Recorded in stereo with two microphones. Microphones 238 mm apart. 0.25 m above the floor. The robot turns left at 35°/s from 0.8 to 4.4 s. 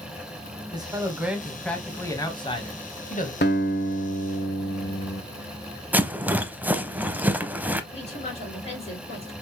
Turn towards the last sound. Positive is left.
turn(degrees=25)  # may be behind; listen again after turning